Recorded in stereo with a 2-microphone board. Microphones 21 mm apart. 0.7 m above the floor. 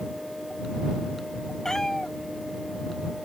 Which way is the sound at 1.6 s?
25° left (ahead or behind).